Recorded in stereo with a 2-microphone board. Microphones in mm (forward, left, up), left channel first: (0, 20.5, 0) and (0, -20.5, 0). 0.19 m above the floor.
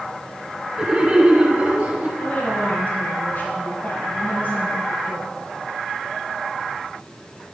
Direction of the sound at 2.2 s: 45° left (ahead or behind).